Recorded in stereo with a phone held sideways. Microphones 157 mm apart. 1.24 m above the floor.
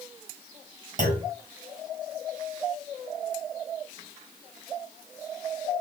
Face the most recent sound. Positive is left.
turn(degrees=-60)  # may be behind; listen again after turning